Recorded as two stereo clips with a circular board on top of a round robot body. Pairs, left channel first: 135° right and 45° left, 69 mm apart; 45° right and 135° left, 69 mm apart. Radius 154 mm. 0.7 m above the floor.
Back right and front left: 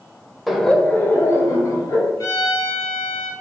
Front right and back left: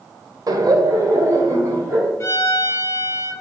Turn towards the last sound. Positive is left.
turn(degrees=-100)